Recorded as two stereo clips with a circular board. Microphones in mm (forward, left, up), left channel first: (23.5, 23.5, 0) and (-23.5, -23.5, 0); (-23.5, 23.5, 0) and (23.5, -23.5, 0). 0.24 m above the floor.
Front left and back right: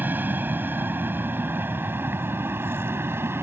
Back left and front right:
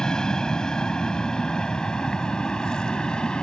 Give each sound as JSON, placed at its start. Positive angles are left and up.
{"t": 0.0, "sound": "an aircraft", "azimuth_deg": -155}